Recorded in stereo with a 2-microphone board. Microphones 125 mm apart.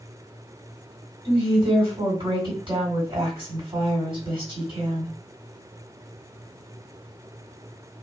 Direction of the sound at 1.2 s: 40° right (ahead or behind).